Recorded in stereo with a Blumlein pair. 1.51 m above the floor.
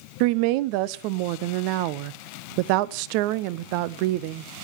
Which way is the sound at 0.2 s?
45° right.